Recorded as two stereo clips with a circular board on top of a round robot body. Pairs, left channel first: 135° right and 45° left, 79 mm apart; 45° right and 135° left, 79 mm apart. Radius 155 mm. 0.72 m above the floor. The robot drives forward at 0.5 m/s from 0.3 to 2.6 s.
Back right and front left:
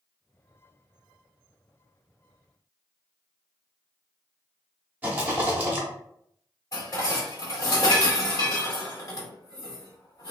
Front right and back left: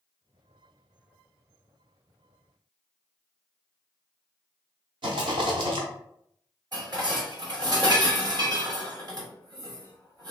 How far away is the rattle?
About 0.7 m.